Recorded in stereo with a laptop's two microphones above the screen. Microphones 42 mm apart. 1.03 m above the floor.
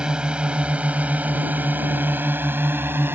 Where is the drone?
20° right (ahead or behind); by 3.1 s 65° right (ahead or behind).